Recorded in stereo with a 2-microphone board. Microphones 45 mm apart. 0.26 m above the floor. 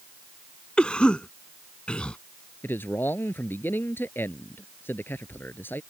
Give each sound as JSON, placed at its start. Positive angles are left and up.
{"t": 0.8, "sound": "a cough", "side_deg": 25}
{"t": 2.6, "sound": "a man speaking", "side_deg": 55}